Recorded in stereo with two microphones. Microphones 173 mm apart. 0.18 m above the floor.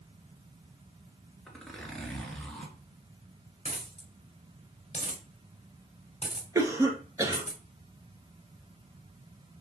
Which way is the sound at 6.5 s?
20° right (ahead or behind).